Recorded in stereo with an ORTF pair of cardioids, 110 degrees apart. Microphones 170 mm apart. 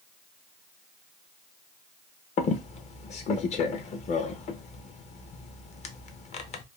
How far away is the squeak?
About 0.6 m.